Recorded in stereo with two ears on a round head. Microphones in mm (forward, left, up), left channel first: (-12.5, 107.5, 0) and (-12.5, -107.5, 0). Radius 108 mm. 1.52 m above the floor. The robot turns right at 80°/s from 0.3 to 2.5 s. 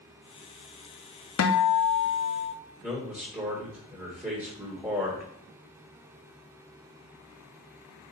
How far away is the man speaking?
About 2 m.